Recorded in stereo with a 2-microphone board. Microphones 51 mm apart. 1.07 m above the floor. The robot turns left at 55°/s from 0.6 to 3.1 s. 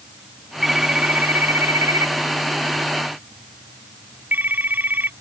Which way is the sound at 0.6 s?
5° right (ahead or behind).